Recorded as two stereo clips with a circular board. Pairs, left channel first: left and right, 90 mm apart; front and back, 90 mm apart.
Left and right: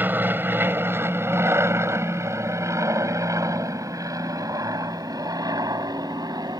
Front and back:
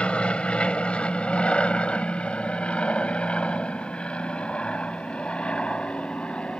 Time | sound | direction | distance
0.0 | an aircraft | 60° right | ?